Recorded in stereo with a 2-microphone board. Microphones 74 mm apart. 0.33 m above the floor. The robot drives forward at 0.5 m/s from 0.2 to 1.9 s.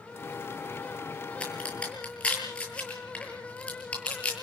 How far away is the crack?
About 8.5 m.